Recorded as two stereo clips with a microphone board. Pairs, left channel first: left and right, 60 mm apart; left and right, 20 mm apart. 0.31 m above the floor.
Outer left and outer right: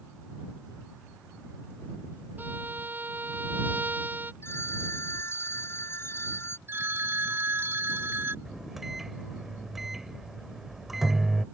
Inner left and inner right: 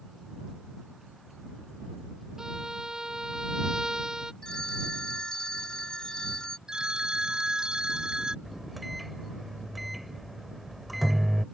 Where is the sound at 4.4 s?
40° left (ahead or behind).